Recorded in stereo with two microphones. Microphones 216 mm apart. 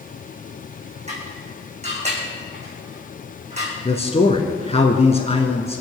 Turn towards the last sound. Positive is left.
turn(degrees=30)  # may be behind; listen again after turning